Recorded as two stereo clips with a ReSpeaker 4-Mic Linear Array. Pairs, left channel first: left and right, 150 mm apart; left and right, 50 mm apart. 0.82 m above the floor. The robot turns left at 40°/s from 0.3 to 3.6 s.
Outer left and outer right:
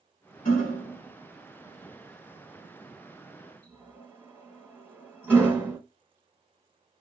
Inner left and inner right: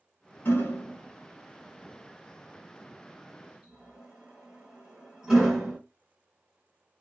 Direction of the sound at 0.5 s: 60° left (ahead or behind).